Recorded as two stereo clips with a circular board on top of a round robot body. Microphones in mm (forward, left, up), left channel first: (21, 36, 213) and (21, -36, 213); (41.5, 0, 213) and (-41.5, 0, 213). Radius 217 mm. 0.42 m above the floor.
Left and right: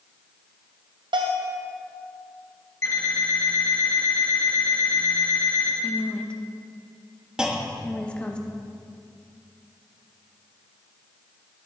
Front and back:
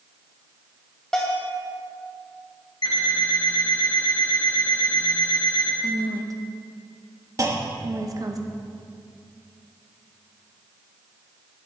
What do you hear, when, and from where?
1.1 s a bell: 85° right, 0.9 m
2.8 s an alarm clock: 40° left, 1.8 m
5.8 s a woman speaking: 160° left, 1.1 m
7.4 s a clunk: 165° right, 1.3 m